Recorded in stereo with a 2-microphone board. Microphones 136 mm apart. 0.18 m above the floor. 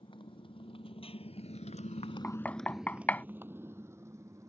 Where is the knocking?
10° left (ahead or behind).